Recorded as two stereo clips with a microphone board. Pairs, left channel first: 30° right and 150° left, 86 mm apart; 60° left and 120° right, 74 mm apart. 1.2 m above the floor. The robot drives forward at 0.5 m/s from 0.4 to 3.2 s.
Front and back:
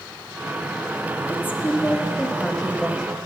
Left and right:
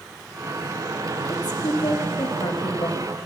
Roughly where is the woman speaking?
Ahead left.